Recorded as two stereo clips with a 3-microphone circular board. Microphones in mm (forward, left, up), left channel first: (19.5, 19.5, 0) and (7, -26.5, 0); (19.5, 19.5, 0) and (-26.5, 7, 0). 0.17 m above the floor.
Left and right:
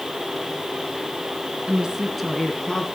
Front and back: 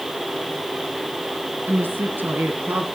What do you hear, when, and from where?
1.7 s a woman speaking: 165° right, 1.7 m; by 2.9 s 145° left, 2 m